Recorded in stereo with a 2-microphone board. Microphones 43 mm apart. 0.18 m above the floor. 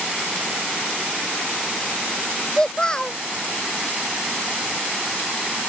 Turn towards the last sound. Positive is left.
turn(degrees=15)  # may be behind; listen again after turning